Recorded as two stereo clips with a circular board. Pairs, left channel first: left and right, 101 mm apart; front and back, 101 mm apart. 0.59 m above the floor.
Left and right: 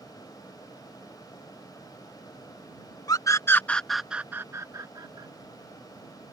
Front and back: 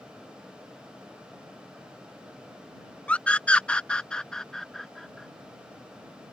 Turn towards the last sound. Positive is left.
turn(degrees=-90)